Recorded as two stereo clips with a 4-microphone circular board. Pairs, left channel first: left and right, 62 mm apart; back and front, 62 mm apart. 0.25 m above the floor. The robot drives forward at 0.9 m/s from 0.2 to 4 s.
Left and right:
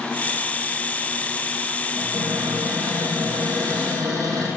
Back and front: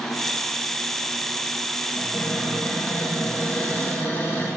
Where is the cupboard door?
105° right, 5.5 m; by 4.5 s 120° right, 6 m.